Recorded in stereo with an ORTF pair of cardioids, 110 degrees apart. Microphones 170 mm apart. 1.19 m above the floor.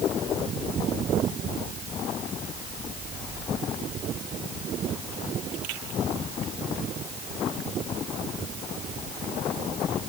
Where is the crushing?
No crushing in this recording.